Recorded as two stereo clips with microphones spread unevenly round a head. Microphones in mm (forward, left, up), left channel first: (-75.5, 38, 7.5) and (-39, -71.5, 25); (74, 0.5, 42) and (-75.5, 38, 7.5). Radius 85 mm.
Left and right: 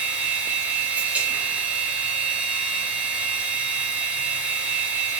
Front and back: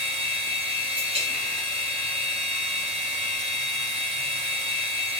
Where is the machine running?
155° right, 0.9 m.